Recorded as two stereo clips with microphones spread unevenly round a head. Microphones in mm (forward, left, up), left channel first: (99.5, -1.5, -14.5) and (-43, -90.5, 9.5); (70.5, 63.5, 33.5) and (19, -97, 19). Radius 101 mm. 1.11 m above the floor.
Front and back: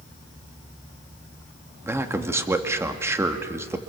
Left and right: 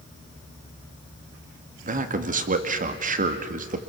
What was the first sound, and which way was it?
A man speaking, 70° right.